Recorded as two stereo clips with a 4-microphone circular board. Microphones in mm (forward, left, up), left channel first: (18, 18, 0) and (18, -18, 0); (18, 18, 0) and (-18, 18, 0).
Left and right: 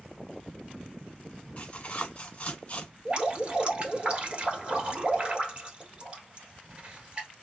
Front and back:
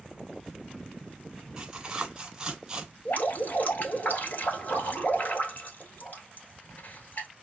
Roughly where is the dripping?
Ahead right.